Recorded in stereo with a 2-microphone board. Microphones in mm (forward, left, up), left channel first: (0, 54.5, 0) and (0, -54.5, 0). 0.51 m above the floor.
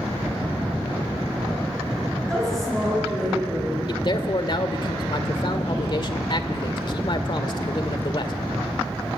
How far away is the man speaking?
About 1.7 m.